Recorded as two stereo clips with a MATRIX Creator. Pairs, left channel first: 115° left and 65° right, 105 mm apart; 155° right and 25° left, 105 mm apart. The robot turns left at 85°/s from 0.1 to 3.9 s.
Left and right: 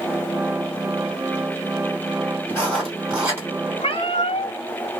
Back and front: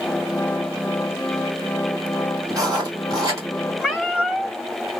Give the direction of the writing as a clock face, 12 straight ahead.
10 o'clock.